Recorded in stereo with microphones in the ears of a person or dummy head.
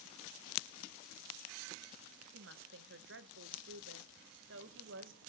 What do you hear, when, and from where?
2.3 s a woman speaking: 55° right (ahead or behind), 1.1 m